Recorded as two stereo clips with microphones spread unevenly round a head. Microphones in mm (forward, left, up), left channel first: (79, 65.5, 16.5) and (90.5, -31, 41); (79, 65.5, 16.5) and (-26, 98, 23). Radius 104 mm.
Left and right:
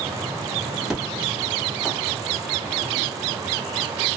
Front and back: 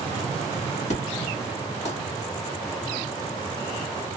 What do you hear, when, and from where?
0.9 s an explosion: straight ahead, 1.4 m